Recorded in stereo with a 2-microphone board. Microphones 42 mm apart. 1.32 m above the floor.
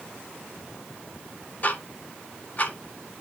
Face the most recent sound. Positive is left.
turn(degrees=40)  # may be behind; listen again after turning